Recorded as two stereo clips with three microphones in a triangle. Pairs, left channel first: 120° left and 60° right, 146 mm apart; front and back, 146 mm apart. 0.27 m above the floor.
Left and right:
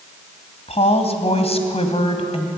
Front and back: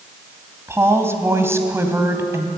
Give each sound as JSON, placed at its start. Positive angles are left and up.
{"t": 0.7, "sound": "a woman speaking", "azimuth_deg": 115, "distance_m": 2.0}